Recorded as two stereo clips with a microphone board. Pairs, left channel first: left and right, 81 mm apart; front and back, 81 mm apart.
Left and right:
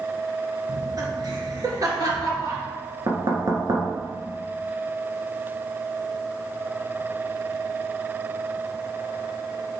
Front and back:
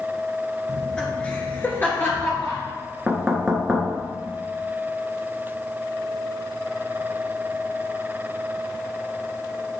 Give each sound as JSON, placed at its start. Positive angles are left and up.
{"t": 0.7, "sound": "laughter", "azimuth_deg": -85, "distance_m": 2.0}
{"t": 3.1, "sound": "knocking", "azimuth_deg": -100, "distance_m": 1.5}